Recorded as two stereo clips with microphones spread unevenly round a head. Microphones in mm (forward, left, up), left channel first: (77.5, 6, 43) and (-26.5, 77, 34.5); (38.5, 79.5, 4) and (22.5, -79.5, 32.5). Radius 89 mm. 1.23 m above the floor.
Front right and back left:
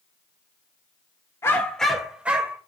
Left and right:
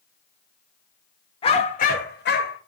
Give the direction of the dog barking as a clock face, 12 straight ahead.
11 o'clock.